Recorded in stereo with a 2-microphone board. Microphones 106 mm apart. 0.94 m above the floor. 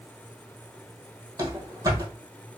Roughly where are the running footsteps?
Right.